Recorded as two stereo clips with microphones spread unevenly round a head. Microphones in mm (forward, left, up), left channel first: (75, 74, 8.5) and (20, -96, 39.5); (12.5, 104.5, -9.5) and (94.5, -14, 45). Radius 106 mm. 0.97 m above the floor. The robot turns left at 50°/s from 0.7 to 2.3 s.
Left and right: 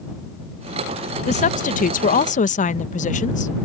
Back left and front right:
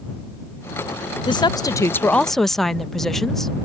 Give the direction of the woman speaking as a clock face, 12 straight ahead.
8 o'clock.